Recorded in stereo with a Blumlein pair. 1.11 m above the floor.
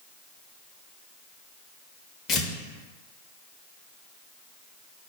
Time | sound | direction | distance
2.3 | tearing paper | 25° left | 0.6 m